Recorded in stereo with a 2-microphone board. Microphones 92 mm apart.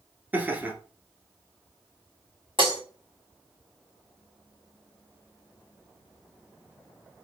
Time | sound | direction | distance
0.3 | laughter | 20° right (ahead or behind) | 1.4 m
2.6 | breaking glass | 65° right (ahead or behind) | 2.5 m